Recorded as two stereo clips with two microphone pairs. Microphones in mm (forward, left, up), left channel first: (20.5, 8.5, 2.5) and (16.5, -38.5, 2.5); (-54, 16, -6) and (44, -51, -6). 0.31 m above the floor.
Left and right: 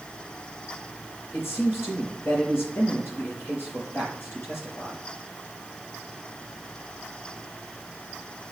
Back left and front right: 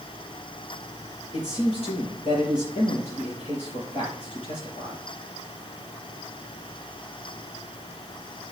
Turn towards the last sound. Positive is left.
turn(degrees=125)